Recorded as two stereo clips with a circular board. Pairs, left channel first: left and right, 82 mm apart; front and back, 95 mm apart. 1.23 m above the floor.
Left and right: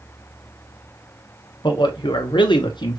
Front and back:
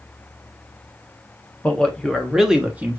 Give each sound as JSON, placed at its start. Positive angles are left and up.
{"t": 1.6, "sound": "a man speaking", "azimuth_deg": 75, "distance_m": 1.3}